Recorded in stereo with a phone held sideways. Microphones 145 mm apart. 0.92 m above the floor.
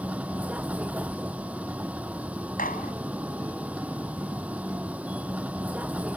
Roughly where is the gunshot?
Left.